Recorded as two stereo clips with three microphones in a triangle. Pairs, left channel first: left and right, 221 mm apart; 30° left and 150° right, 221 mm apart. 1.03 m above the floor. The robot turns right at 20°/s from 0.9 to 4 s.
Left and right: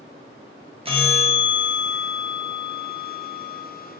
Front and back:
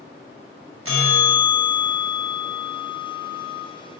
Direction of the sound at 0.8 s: 155° right.